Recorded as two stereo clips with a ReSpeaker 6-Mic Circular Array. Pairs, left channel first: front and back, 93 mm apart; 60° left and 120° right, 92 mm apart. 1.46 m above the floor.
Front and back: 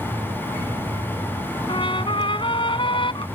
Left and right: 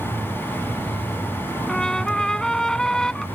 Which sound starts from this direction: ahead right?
A trumpet, at 1.7 s.